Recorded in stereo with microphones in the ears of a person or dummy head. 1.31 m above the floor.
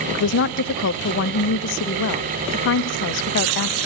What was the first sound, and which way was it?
A woman speaking, 60° left (ahead or behind).